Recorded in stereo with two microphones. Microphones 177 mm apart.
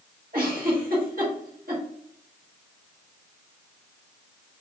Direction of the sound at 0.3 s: 55° right (ahead or behind).